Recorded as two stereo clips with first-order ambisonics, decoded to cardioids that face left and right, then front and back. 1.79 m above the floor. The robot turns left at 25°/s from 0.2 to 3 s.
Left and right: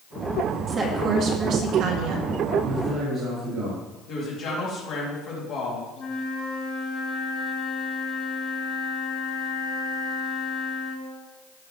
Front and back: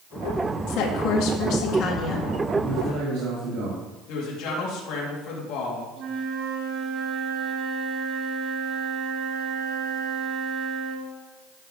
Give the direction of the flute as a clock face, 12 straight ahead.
7 o'clock.